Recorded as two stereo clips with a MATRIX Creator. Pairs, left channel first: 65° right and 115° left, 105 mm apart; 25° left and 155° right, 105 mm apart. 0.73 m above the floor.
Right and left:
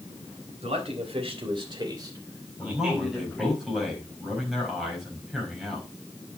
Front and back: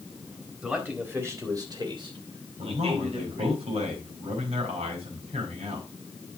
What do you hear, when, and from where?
0.6 s a man speaking: 125° left, 3.5 m; by 3.6 s 150° right, 3.5 m
2.6 s a man speaking: 160° right, 4.5 m